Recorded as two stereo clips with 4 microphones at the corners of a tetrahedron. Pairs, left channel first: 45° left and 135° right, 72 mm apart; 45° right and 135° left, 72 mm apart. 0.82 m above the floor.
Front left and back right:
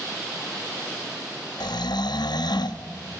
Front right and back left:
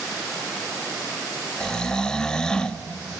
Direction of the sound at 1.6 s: 35° left.